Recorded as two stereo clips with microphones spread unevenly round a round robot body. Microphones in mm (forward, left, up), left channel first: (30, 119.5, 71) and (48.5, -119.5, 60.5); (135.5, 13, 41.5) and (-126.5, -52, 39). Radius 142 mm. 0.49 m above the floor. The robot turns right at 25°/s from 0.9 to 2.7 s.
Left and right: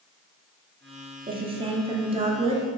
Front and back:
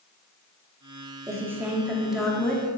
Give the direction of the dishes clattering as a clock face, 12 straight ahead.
I don't hear dishes clattering.